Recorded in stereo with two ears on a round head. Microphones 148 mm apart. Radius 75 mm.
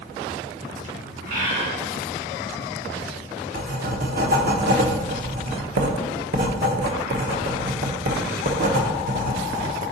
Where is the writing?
55° right (ahead or behind), 0.8 m.